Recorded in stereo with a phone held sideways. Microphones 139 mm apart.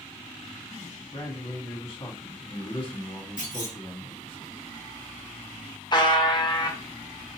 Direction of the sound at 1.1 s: 40° left (ahead or behind).